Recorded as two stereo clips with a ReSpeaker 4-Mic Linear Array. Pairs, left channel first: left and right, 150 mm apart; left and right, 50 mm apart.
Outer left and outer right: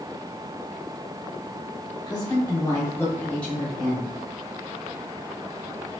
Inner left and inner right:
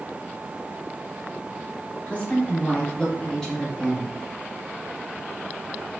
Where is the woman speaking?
25° left (ahead or behind), 1.0 m; by 4.1 s 5° right (ahead or behind), 0.9 m.